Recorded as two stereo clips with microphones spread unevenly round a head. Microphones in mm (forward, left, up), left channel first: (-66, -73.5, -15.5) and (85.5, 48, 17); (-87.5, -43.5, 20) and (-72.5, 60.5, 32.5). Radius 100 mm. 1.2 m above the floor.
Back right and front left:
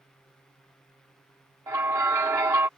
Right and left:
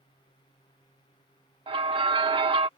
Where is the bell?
115° left.